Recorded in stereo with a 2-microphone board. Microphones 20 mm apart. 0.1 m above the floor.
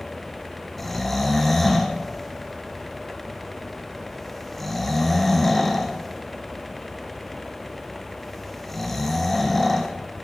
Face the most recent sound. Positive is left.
turn(degrees=15)  # may be behind; listen again after turning